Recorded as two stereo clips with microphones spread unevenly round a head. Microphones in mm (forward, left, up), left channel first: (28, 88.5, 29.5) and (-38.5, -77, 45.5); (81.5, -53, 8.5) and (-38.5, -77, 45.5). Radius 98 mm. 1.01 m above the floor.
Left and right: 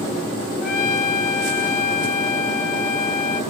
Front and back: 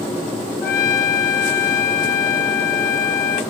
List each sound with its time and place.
0.6 s a trumpet: 25° left, 1.4 m